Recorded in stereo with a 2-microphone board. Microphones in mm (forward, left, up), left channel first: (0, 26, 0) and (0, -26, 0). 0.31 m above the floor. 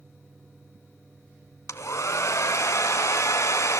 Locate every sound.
1.7 s a hair dryer: 80° left, 0.8 m